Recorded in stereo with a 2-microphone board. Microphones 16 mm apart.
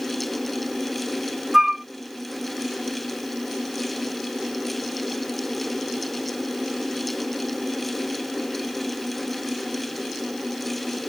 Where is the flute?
30° right (ahead or behind).